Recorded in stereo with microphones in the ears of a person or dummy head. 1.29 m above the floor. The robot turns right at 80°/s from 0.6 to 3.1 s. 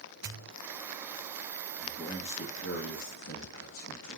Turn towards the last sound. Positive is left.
turn(degrees=110)